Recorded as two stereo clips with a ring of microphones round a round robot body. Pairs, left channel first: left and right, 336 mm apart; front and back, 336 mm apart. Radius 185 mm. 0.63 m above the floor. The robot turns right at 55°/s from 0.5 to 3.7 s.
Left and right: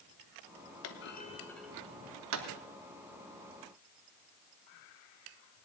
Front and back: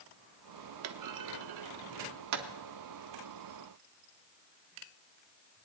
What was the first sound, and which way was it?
A clunk, 135° left.